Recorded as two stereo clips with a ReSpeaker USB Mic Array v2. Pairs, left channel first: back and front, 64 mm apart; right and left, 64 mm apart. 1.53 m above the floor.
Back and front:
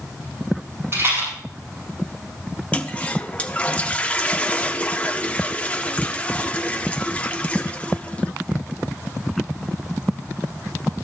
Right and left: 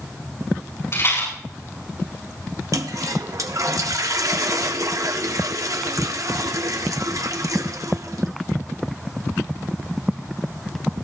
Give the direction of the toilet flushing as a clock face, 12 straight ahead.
8 o'clock.